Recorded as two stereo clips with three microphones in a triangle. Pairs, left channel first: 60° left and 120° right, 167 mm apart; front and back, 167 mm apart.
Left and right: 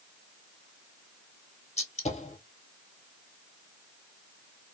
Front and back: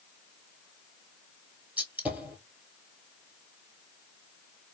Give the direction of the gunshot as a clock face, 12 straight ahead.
9 o'clock.